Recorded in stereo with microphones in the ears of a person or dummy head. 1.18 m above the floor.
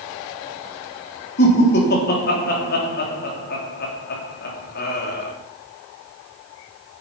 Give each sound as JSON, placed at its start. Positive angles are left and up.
{"t": 1.4, "sound": "laughter", "side_deg": 50, "distance_m": 3.0}